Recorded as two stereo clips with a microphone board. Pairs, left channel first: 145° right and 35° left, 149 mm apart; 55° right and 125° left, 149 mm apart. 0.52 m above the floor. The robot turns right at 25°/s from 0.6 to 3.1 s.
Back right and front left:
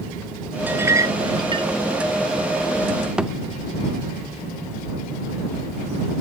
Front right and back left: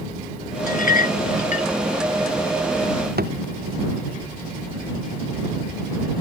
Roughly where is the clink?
Ahead right.